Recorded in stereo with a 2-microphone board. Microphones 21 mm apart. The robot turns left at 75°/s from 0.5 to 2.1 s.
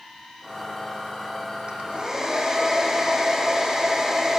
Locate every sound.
1.7 s a hair dryer: 125° right, 4.5 m; by 4.4 s 160° right, 4.5 m